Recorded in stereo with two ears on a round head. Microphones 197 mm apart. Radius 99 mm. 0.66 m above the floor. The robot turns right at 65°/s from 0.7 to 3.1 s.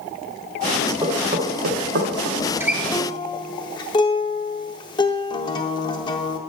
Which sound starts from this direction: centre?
Knocking, at 1.0 s.